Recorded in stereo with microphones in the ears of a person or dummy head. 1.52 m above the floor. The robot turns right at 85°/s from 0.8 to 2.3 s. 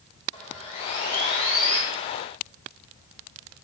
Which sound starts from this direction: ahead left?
Sawing, at 0.3 s.